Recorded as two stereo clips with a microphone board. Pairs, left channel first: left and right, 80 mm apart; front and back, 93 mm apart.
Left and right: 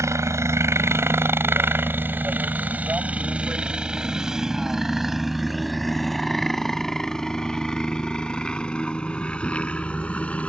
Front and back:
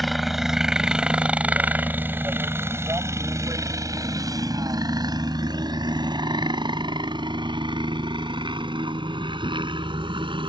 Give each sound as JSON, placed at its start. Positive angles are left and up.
{"t": 0.0, "sound": "a helicopter", "azimuth_deg": -90}